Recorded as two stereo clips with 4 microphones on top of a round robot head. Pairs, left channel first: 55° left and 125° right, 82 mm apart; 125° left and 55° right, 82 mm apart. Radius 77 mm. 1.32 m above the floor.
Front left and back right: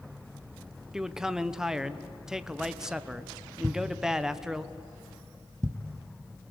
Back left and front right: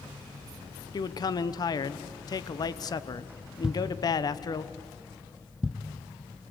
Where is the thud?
125° right, 0.7 m.